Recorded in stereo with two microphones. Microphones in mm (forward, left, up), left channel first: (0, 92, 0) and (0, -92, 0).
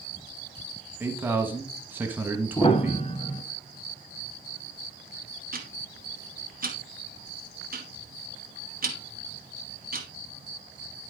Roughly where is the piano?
Left.